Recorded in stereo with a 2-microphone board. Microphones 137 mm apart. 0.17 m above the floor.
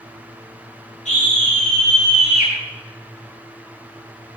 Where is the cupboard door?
No cupboard door in this recording.